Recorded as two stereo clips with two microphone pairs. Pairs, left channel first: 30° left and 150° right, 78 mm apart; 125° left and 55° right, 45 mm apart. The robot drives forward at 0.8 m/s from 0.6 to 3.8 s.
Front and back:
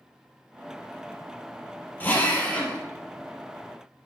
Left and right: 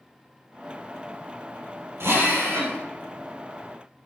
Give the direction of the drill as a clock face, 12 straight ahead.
1 o'clock.